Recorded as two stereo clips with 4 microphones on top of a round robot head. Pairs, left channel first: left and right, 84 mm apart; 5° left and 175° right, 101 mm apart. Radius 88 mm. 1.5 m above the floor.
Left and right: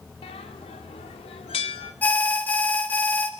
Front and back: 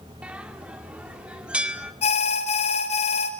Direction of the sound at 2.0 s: 20° left.